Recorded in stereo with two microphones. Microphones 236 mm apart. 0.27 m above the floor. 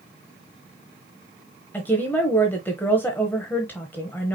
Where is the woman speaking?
10° left (ahead or behind), 1.1 m.